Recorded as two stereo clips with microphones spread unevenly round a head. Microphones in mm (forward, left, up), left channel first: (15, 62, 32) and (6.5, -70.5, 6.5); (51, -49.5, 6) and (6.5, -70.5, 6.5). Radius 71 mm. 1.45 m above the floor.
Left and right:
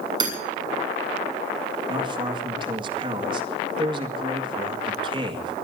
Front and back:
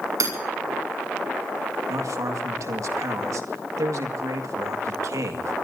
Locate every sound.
0.2 s hammering: 155° right, 7 m
1.9 s a man speaking: 155° right, 1.9 m